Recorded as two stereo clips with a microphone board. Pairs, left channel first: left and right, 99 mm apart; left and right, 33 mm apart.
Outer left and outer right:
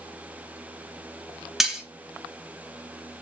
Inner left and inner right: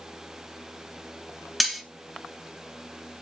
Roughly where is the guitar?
No guitar in this recording.